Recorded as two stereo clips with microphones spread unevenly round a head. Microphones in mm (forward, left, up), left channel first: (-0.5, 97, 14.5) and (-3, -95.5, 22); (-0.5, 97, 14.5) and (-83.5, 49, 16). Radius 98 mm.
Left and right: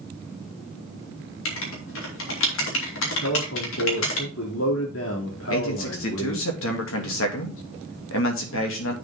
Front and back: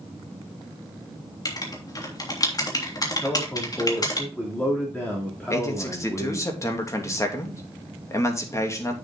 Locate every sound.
1.4 s writing: 75° left, 3 m
3.2 s a man speaking: 105° left, 3 m
5.5 s a man speaking: 85° left, 2.5 m